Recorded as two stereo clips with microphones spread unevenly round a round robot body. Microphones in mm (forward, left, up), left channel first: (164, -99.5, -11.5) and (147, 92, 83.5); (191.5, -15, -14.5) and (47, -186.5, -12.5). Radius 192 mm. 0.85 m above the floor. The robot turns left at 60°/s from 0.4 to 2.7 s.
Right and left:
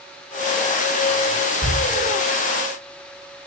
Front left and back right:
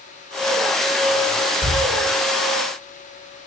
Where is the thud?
55° left, 3.5 m; by 1.8 s 45° left, 3.5 m.